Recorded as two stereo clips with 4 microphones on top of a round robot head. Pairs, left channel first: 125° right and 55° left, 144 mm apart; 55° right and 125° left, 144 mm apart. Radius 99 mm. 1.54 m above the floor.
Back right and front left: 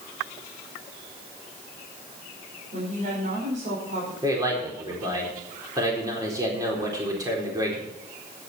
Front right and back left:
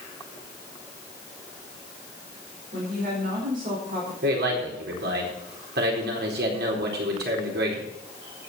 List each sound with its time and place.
2.7 s a woman speaking: 95° left, 5 m
4.2 s a man speaking: 125° left, 4 m